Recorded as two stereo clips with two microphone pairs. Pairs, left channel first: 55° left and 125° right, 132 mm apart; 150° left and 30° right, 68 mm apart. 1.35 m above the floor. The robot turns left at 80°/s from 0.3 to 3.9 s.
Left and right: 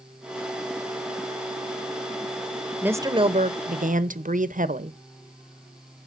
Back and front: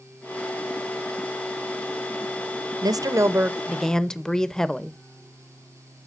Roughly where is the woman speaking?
Ahead right.